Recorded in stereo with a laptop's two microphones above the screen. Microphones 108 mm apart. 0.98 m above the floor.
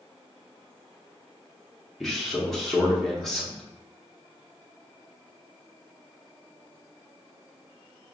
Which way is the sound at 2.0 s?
Centre (ahead or behind).